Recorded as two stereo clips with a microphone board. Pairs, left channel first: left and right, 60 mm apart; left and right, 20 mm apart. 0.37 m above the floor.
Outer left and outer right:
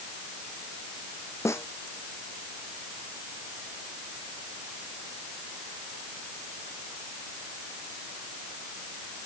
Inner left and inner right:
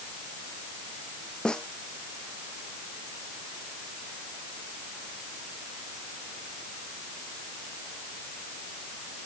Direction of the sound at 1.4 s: 50° left (ahead or behind).